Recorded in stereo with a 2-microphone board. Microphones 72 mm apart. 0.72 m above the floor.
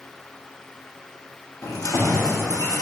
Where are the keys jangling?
50° left (ahead or behind), 0.6 m; by 2.8 s 60° left (ahead or behind), 1.8 m.